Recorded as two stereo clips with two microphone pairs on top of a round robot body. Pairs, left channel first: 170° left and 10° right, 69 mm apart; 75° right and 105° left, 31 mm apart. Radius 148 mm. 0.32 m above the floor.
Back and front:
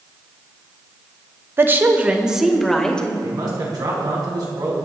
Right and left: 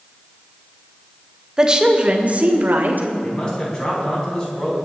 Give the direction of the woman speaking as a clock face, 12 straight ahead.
11 o'clock.